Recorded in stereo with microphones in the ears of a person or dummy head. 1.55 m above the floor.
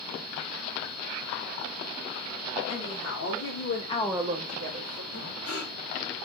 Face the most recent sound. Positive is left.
turn(degrees=70)  # may be behind; listen again after turning